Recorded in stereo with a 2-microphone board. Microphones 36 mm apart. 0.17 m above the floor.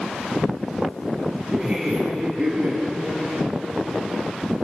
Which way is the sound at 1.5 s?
25° right (ahead or behind).